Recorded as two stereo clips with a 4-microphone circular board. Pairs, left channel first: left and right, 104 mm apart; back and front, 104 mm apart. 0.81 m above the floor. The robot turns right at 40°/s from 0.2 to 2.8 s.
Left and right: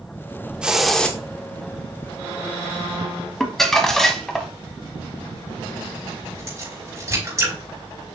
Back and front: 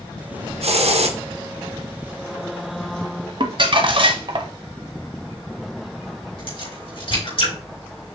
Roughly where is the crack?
Behind right.